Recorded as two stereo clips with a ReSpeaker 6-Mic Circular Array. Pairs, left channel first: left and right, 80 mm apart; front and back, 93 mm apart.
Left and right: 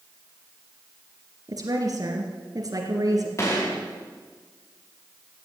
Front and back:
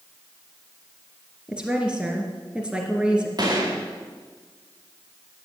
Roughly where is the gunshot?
Behind left.